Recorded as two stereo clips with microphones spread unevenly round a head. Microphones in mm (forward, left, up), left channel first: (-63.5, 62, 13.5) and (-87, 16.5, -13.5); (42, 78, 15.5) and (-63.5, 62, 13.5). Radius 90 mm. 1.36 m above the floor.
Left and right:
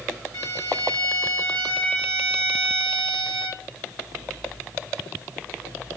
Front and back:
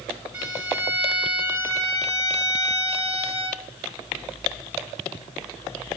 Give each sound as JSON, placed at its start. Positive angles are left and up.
{"t": 0.3, "sound": "a violin", "azimuth_deg": -100, "distance_m": 1.8}